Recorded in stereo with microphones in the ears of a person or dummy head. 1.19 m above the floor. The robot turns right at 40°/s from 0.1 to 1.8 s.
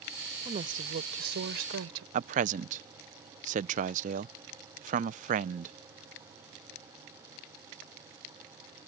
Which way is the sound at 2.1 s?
35° right (ahead or behind).